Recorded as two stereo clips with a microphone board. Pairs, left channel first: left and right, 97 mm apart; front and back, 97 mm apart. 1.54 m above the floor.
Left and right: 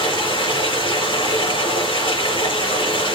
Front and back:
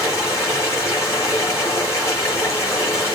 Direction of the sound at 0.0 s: 60° left.